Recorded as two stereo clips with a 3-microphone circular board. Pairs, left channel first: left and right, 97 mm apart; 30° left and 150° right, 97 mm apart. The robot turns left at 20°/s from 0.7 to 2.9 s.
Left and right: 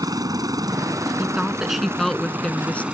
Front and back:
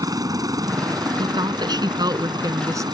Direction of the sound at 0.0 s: 120° right.